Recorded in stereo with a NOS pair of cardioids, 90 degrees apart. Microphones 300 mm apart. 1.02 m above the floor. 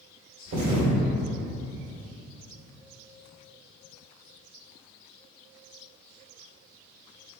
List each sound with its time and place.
0.5 s a thud: 60° right, 1.6 m